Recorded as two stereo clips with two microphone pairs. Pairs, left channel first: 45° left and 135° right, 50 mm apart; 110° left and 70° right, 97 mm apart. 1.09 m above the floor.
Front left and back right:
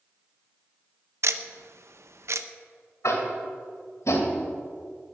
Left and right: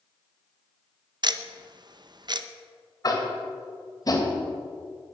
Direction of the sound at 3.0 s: 60° left.